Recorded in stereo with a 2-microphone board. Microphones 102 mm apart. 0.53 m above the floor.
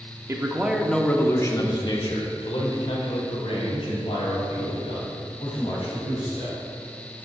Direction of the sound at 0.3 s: 25° right (ahead or behind).